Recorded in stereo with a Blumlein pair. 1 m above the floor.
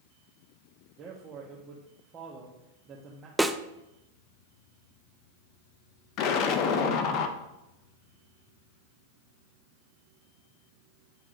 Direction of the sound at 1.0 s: 25° right.